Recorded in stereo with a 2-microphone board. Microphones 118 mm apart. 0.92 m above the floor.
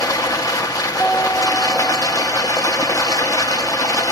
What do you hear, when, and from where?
0.0 s running water: 30° left (ahead or behind), 1.0 m
1.0 s a guitar: 20° left (ahead or behind), 1.5 m